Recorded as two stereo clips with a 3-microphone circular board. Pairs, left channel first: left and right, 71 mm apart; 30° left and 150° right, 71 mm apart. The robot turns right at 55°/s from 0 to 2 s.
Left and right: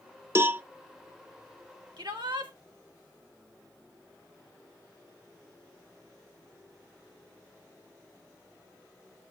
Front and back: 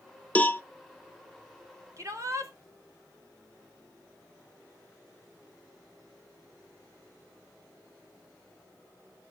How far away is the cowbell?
About 0.5 m.